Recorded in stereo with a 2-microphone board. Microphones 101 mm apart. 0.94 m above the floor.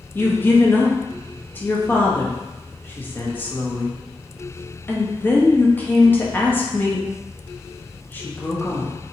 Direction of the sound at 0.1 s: 20° left (ahead or behind).